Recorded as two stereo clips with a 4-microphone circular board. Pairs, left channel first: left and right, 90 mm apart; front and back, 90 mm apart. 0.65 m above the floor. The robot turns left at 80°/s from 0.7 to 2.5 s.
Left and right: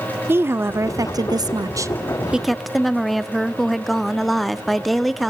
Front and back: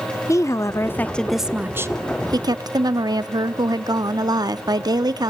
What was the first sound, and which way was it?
A woman speaking, 40° right.